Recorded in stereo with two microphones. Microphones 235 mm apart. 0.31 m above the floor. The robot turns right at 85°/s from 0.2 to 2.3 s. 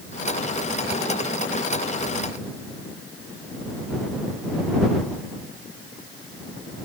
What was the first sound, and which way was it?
Only background noise.